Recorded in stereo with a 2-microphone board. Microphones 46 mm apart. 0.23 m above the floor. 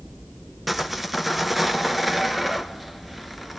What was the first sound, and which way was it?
Sawing, 5° right (ahead or behind).